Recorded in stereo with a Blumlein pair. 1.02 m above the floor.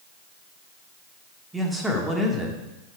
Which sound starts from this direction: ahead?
A man speaking, at 1.5 s.